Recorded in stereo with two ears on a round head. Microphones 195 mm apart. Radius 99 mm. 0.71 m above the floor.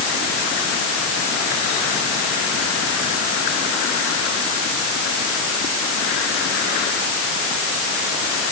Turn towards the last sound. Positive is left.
No sound to turn to.